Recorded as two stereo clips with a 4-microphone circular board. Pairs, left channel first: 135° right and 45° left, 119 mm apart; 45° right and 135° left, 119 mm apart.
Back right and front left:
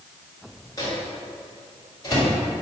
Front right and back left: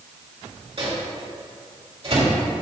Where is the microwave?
170° left, 2.5 m.